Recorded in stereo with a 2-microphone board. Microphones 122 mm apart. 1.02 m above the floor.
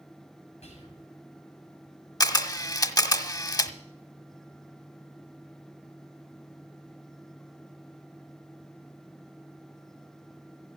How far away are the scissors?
No scissors in this recording.